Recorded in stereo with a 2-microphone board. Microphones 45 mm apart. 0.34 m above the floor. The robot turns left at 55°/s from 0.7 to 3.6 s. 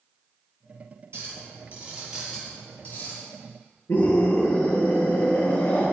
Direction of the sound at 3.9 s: 60° left (ahead or behind).